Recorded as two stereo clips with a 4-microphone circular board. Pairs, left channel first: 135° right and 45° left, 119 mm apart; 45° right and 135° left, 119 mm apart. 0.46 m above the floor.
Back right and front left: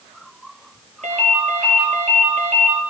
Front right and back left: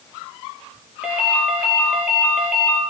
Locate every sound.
1.0 s a ringtone: 55° left, 4.5 m